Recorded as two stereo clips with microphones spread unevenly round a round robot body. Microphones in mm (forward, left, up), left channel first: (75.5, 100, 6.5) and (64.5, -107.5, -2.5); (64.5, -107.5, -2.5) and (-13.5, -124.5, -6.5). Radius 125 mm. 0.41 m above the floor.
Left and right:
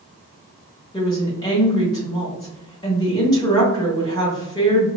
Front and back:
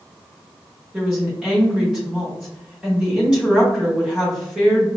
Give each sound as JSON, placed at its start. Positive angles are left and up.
{"t": 0.9, "sound": "a woman speaking", "azimuth_deg": 135, "distance_m": 0.9}